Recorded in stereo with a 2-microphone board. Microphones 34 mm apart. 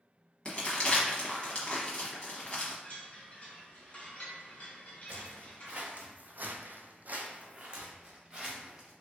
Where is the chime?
35° left (ahead or behind), 1.4 m.